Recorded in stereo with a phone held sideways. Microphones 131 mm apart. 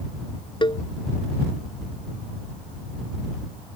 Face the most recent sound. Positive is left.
turn(degrees=40)  # may be behind; listen again after turning